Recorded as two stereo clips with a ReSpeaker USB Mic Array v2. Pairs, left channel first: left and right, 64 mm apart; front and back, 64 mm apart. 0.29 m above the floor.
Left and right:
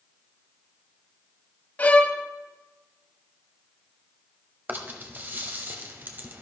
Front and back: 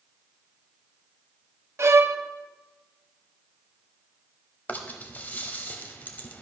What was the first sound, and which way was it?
A violin, 150° left.